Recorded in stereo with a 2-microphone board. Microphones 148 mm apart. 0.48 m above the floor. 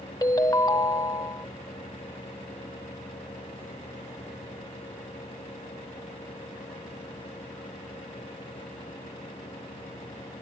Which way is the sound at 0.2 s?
25° left (ahead or behind).